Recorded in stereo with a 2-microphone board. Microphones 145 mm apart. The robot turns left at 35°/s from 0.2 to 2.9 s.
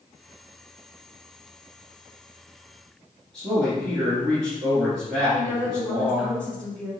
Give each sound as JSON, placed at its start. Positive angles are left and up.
{"t": 3.3, "sound": "a man speaking", "side_deg": 5, "distance_m": 1.9}
{"t": 5.3, "sound": "a woman speaking", "side_deg": 10, "distance_m": 1.1}